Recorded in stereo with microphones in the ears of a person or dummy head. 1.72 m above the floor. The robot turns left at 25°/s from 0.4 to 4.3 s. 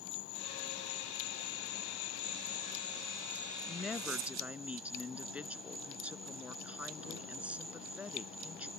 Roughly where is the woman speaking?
Centre.